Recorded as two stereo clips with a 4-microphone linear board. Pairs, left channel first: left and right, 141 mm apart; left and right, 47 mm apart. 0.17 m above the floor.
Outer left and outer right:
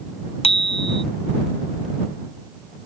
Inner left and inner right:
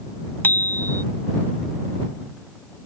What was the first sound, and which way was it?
A bicycle bell, 45° left (ahead or behind).